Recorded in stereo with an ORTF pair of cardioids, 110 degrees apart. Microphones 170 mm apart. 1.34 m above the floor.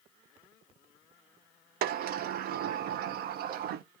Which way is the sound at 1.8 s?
70° right.